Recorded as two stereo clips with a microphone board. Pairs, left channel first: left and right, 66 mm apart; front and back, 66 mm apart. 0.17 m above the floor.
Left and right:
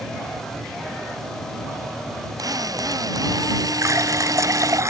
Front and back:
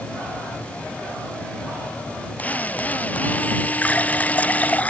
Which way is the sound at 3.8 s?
60° right.